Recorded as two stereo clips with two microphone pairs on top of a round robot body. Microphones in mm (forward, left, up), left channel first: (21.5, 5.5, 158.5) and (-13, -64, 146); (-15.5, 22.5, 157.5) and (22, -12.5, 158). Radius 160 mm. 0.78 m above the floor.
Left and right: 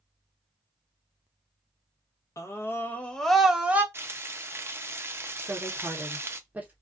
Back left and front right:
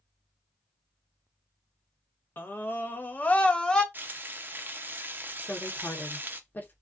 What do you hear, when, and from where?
2.4 s a scream: 110° left, 1.0 m; by 3.8 s 155° right, 0.9 m
3.9 s frying: 80° right, 0.6 m
5.4 s a woman speaking: 175° right, 1.0 m